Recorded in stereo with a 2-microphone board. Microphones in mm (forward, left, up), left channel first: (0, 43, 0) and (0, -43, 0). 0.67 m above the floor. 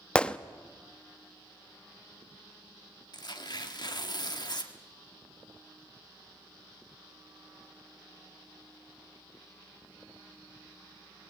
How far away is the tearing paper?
About 1.4 m.